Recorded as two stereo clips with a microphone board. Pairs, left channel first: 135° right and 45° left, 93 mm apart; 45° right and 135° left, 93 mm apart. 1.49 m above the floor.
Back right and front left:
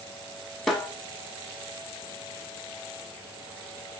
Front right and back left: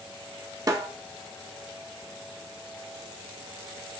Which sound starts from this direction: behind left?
A snare drum, at 0.7 s.